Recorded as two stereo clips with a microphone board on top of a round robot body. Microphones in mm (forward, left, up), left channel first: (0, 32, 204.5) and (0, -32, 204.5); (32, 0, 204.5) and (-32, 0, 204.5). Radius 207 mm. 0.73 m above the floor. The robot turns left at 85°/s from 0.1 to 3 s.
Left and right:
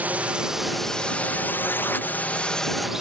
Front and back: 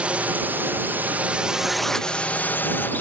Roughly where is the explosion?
No explosion in this recording.